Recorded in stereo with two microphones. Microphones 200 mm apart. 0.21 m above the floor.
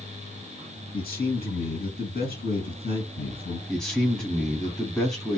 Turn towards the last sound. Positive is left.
turn(degrees=5)  # may be behind; listen again after turning